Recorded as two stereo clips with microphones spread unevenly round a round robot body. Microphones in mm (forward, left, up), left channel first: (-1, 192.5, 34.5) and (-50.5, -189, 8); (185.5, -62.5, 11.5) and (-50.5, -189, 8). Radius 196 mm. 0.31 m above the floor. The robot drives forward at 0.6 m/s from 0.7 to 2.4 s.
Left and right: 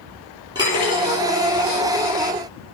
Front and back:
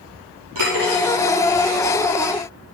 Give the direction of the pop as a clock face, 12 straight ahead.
No pop in this recording.